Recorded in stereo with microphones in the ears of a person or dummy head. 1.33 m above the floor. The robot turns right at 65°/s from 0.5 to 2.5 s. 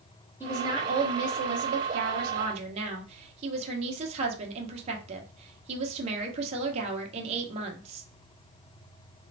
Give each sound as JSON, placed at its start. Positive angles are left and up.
{"t": 0.4, "sound": "a woman speaking", "azimuth_deg": -165, "distance_m": 1.2}